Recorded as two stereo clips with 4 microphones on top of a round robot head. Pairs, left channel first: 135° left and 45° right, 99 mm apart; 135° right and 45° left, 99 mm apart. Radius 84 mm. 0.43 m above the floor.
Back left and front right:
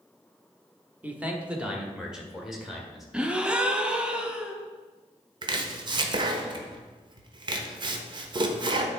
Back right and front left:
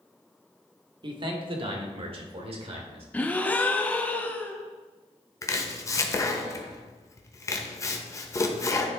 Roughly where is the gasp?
Right.